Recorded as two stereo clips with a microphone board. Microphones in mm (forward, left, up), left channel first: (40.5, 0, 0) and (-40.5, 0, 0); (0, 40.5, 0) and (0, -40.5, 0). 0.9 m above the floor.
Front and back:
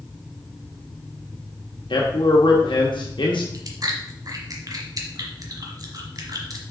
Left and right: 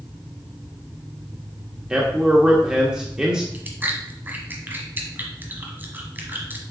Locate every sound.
1.9 s a man speaking: 10° right, 1.0 m
3.5 s chewing: 150° right, 1.2 m